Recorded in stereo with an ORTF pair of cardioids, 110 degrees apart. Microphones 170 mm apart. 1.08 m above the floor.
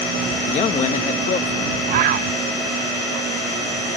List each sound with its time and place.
0.5 s a man speaking: 45° left
1.9 s a bird: 55° right